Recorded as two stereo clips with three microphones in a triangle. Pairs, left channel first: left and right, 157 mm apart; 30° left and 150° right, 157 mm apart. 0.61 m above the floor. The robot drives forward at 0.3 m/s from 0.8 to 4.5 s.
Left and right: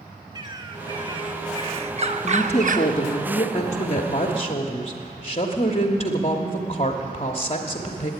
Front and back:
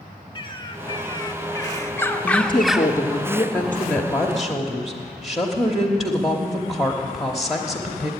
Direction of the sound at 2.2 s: 65° left.